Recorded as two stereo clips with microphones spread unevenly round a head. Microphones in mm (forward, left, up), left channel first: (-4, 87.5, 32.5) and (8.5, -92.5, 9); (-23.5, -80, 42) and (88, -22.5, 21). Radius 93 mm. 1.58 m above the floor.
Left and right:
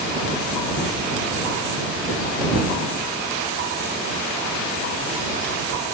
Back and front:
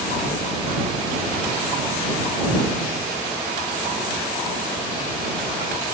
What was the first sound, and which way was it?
Only background noise.